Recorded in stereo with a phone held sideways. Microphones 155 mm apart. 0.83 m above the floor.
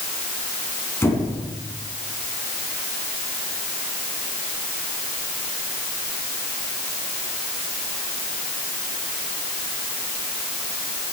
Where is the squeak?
15° left (ahead or behind), 5 m.